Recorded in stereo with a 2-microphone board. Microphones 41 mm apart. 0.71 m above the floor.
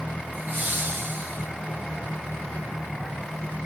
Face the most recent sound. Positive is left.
turn(degrees=-60)  # may be behind; listen again after turning